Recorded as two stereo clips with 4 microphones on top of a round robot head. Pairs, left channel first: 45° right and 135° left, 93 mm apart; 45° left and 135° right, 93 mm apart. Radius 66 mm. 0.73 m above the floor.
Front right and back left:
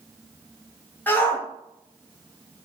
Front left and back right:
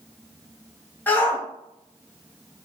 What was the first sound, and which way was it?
A shout, straight ahead.